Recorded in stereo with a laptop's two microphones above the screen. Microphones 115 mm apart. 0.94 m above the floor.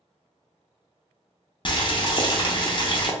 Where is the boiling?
45° left (ahead or behind), 0.5 m.